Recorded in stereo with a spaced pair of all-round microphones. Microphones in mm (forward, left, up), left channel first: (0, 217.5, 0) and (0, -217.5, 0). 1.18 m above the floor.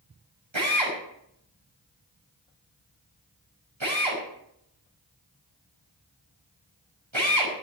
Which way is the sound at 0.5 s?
90° right.